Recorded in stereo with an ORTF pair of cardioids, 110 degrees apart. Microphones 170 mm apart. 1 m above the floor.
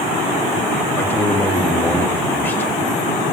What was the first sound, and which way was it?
A man speaking, 10° left.